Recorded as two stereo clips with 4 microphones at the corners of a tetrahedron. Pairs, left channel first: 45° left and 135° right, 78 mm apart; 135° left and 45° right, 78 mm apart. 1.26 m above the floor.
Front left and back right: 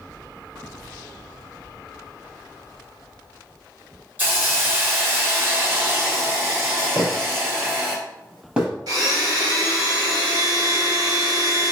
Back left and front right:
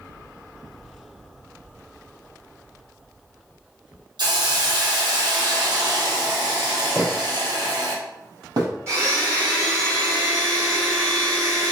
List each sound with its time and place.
4.2 s a hiss: 70° right, 1.4 m
7.0 s footsteps: 125° right, 2.0 m; by 8.7 s 60° right, 2 m
8.9 s a blender: 100° right, 2.5 m